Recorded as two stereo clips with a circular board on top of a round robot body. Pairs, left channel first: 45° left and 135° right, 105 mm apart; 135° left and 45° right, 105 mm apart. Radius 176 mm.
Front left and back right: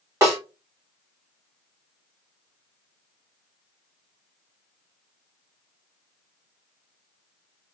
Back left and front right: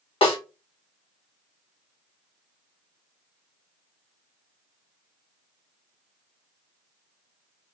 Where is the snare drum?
165° left, 1.4 m.